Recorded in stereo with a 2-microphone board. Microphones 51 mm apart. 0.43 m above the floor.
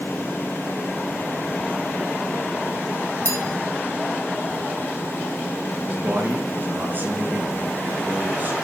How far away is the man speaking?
About 6 m.